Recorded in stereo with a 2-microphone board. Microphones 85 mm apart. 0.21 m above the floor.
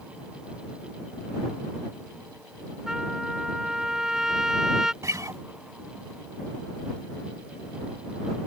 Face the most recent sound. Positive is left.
turn(degrees=-40)  # may be behind; listen again after turning